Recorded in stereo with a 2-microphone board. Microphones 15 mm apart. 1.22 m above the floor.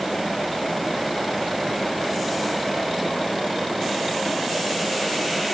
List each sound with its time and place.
Only background noise.